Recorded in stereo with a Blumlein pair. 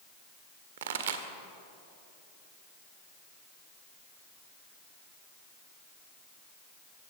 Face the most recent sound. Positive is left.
turn(degrees=-60)